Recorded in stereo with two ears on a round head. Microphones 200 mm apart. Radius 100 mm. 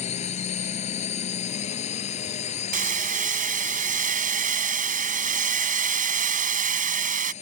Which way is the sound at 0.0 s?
30° left (ahead or behind).